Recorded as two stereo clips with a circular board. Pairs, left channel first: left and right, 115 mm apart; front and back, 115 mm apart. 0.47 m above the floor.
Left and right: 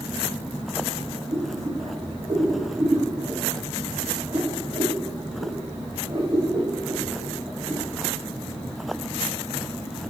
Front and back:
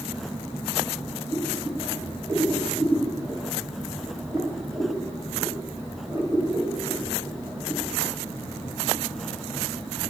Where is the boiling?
120° right, 1.7 m.